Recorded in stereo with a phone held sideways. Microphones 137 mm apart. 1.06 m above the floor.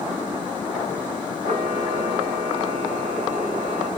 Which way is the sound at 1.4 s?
85° right.